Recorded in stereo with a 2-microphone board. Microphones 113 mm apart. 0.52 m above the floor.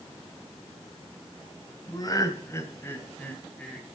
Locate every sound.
1.9 s laughter: 35° left (ahead or behind), 2.5 m; by 4.0 s 5° left (ahead or behind), 2.5 m